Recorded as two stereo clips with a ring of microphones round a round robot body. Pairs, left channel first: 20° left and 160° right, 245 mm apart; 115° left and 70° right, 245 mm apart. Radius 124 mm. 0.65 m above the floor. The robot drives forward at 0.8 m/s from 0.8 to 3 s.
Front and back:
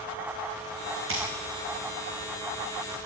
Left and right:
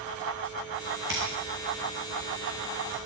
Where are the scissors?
115° right, 8.5 m; by 3.0 s 125° right, 9.5 m.